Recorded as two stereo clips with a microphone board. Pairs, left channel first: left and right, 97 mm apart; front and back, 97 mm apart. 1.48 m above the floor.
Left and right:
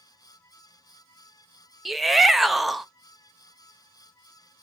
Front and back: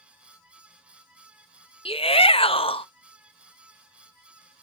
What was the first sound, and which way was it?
A shout, straight ahead.